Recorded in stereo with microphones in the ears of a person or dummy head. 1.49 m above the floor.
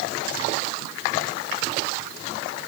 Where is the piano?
I don't hear a piano.